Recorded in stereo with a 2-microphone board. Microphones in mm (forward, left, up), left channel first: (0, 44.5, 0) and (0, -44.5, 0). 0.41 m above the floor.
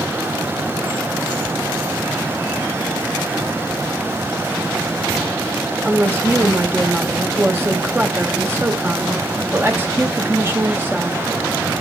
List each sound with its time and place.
5.8 s a woman speaking: 25° right (ahead or behind), 1.1 m